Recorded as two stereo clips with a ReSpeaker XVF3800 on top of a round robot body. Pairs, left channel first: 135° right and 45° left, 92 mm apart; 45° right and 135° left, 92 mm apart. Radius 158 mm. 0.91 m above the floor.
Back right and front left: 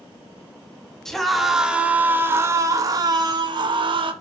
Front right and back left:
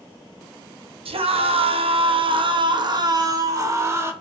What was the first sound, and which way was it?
A scream, 140° left.